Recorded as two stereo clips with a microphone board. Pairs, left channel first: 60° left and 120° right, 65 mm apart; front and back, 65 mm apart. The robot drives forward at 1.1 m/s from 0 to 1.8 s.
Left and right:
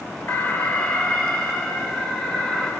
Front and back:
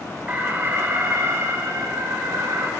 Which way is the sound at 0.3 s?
110° left.